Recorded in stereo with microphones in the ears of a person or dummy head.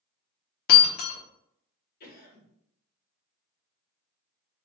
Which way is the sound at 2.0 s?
60° left (ahead or behind).